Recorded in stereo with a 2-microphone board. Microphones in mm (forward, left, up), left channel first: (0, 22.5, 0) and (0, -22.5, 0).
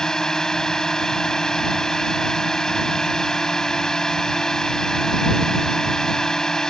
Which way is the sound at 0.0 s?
15° left (ahead or behind).